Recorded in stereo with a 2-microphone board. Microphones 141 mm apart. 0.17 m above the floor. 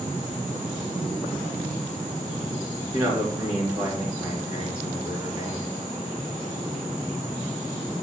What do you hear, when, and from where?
2.9 s a man speaking: 20° right (ahead or behind), 2.5 m